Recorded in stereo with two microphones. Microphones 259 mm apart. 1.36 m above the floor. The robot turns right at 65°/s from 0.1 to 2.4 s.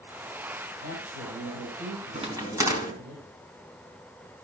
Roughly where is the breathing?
I don't hear breathing.